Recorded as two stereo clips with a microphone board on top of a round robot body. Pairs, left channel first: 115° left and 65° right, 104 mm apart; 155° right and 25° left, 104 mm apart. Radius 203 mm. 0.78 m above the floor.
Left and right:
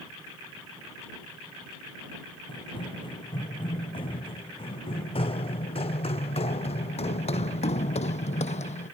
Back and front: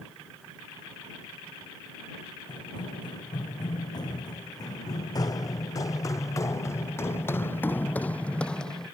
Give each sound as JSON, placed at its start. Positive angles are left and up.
{"t": 2.5, "sound": "running footsteps", "azimuth_deg": 155}